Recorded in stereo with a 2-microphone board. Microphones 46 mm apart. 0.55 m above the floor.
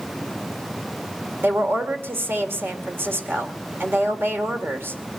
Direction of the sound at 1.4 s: 60° right (ahead or behind).